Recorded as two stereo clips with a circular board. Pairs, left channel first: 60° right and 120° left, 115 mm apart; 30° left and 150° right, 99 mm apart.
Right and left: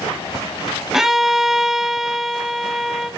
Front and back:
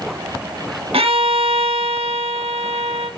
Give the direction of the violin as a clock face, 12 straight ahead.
5 o'clock.